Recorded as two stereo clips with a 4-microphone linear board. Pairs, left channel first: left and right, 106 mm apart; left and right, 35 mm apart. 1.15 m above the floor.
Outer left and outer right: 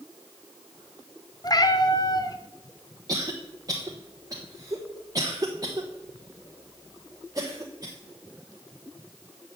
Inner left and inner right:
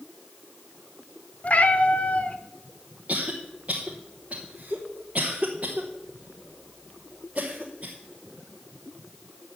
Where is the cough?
35° right (ahead or behind), 1.0 m.